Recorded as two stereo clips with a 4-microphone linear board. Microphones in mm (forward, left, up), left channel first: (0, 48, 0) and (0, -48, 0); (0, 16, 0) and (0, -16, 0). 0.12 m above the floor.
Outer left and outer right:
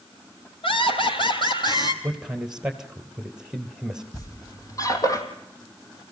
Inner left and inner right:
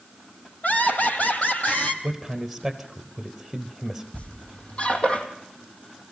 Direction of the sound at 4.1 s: 35° left (ahead or behind).